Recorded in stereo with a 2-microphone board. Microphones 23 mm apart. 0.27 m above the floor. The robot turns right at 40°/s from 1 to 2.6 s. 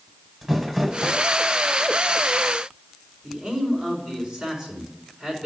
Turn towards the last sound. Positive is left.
turn(degrees=-30)  # may be behind; listen again after turning